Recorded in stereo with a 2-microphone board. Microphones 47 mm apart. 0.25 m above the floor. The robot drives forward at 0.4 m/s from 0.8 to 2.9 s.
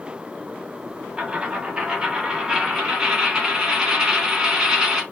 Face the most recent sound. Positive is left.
turn(degrees=-10)  # may be behind; listen again after turning